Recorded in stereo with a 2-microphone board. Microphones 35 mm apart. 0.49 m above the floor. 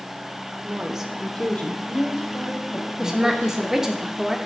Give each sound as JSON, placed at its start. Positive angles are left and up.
{"t": 0.6, "sound": "a woman speaking", "side_deg": -35, "distance_m": 1.1}
{"t": 3.0, "sound": "a woman speaking", "side_deg": -15, "distance_m": 0.9}